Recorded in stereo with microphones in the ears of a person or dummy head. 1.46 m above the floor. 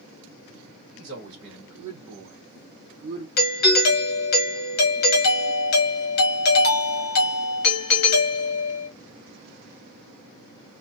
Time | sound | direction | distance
0.9 | a man speaking | 45° right (ahead or behind) | 1.2 m
3.4 | a doorbell | 50° left (ahead or behind) | 0.9 m